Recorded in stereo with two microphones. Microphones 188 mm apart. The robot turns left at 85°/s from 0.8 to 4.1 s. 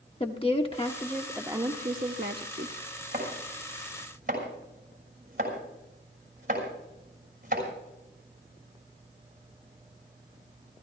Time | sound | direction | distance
0.2 | a woman speaking | 35° left | 0.9 m
3.1 | chopping | 55° right (ahead or behind) | 6 m